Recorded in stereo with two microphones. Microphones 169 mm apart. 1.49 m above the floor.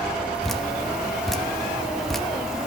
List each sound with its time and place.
0.4 s dripping: centre (ahead or behind), 1.0 m